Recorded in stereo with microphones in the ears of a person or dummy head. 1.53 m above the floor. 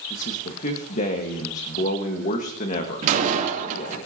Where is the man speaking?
50° left (ahead or behind), 1.5 m.